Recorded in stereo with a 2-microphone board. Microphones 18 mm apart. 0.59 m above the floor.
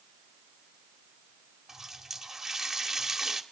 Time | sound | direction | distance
1.7 | a running tap | 20° right (ahead or behind) | 1.8 m